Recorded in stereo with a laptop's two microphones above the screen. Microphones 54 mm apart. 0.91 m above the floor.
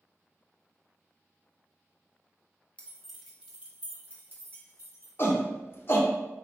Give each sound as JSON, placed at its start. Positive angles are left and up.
{"t": 2.8, "sound": "keys jangling", "side_deg": 25, "distance_m": 0.8}
{"t": 5.2, "sound": "a shout", "side_deg": 45, "distance_m": 1.0}